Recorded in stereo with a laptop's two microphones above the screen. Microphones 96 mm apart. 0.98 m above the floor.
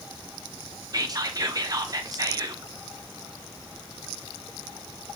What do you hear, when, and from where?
0.9 s whispering: 40° right (ahead or behind), 0.5 m